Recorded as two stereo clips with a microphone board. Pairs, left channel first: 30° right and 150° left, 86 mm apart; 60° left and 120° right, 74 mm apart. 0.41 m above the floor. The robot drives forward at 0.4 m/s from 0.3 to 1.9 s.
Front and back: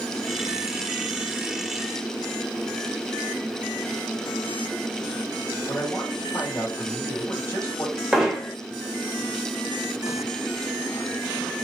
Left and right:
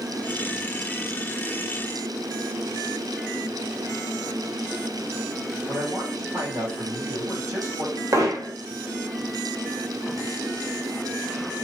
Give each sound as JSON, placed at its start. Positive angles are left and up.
{"t": 5.7, "sound": "a man speaking", "azimuth_deg": -90, "distance_m": 2.5}
{"t": 8.1, "sound": "hammering", "azimuth_deg": -125, "distance_m": 1.0}